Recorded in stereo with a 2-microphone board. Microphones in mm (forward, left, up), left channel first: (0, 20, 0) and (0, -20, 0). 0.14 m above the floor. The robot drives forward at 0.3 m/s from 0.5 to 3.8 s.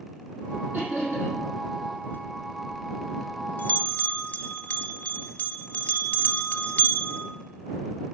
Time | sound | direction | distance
0.7 | laughter | 50° right (ahead or behind) | 4.5 m
2.1 | a bell | 55° left (ahead or behind) | 0.6 m